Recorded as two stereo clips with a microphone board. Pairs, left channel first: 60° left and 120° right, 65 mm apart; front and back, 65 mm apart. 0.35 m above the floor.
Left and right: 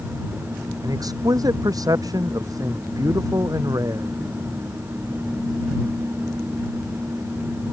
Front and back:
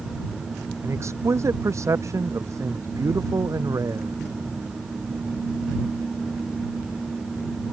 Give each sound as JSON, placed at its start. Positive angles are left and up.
{"t": 0.8, "sound": "a man speaking", "azimuth_deg": -135}